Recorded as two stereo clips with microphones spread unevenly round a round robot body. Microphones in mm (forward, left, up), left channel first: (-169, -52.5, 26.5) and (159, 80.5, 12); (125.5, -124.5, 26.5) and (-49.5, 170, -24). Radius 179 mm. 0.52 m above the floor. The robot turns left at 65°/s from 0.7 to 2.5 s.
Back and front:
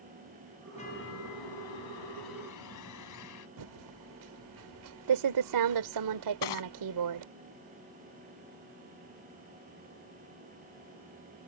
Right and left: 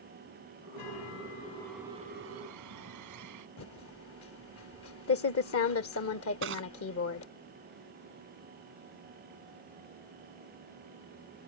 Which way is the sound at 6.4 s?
Straight behind.